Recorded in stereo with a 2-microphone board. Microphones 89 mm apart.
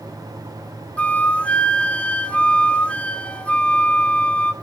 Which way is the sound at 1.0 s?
15° left (ahead or behind).